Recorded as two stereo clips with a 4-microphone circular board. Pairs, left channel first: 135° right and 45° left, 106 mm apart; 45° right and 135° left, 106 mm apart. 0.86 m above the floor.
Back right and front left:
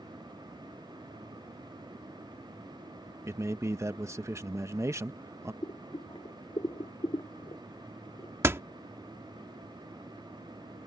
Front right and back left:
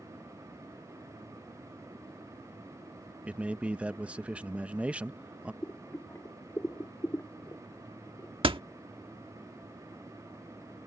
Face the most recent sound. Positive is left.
turn(degrees=110)